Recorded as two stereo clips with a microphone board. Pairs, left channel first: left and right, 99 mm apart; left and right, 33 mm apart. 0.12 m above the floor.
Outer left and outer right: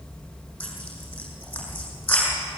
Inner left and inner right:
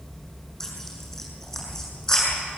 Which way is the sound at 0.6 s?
15° left (ahead or behind).